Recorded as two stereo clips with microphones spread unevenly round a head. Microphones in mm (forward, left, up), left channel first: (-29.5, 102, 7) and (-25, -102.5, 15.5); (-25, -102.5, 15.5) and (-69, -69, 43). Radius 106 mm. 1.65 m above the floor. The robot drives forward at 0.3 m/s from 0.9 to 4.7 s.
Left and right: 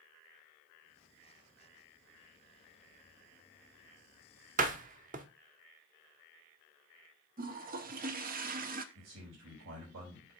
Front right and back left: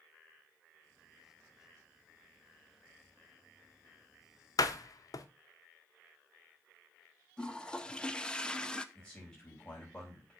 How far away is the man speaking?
About 4.5 m.